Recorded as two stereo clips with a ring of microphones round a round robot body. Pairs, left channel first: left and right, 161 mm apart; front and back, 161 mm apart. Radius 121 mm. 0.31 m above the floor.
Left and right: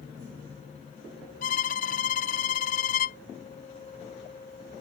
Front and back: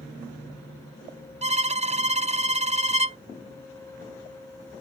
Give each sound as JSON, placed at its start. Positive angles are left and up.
{"t": 1.4, "sound": "a violin", "azimuth_deg": 135}